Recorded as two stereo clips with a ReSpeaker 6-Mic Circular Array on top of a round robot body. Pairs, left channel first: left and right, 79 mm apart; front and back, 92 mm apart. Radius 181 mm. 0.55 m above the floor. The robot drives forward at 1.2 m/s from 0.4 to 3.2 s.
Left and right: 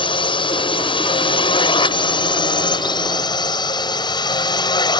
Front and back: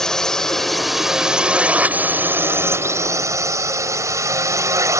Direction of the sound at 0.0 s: 85° left.